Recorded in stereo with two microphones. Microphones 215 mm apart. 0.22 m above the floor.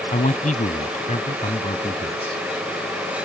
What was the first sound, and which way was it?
A man speaking, 35° left (ahead or behind).